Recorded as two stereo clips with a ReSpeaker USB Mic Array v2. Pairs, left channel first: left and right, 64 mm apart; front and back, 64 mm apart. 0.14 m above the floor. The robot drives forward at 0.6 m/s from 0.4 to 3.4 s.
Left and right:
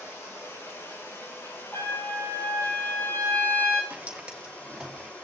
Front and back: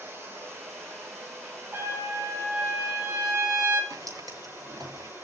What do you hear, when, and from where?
0.0 s running water: 135° left, 4.5 m; by 5.2 s 145° left, 6 m
1.7 s a trumpet: 130° left, 4 m; by 3.8 s 140° left, 4.5 m
3.9 s footsteps: 160° right, 4.5 m; by 5.1 s straight behind, 5.5 m